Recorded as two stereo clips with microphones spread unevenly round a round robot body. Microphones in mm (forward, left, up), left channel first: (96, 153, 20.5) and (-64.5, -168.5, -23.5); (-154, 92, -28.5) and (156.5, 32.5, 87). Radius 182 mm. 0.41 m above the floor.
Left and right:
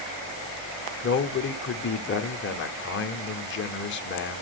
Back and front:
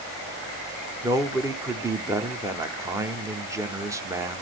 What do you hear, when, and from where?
1.0 s a man speaking: 100° left, 0.9 m